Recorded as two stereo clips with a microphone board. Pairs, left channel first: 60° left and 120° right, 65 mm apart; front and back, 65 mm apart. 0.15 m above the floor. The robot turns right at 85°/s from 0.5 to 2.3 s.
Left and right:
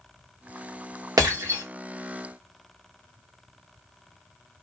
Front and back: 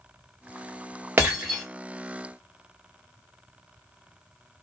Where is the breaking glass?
125° right, 3 m; by 1.6 s 85° right, 3 m.